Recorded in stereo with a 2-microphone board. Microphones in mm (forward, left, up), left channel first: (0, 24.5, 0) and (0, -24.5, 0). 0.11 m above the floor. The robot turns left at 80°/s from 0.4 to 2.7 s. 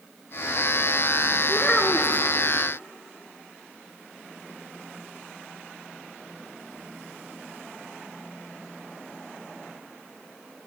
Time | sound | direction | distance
1.5 | a child speaking | 15° left (ahead or behind) | 0.8 m